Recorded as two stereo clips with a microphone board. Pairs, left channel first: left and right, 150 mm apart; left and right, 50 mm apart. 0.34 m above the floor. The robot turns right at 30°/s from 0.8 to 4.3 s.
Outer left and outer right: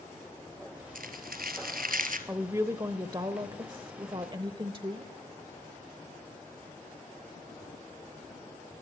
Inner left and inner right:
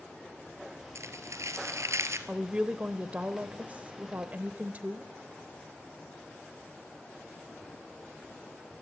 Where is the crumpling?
105° right, 1.9 m; by 2.2 s 70° right, 1.9 m.